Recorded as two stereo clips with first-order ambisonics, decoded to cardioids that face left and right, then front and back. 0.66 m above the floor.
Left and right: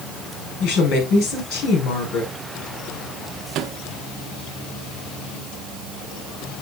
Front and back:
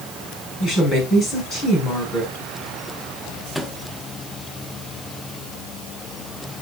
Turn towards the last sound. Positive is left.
turn(degrees=-80)